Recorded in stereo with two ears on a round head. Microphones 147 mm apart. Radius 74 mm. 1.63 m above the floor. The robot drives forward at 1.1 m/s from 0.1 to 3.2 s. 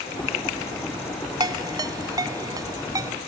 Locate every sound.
1.4 s a ringtone: 25° right (ahead or behind); by 3.1 s 20° right (ahead or behind)